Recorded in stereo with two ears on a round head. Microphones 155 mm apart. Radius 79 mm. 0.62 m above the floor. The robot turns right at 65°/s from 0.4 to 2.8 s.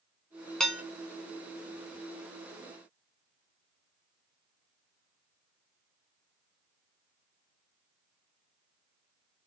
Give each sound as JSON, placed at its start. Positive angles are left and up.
{"t": 0.6, "sound": "dishes clattering", "side_deg": 5, "distance_m": 0.8}